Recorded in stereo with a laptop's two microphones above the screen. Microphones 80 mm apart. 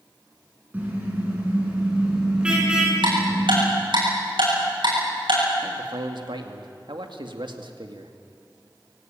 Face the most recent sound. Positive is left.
turn(degrees=-75)  # may be behind; listen again after turning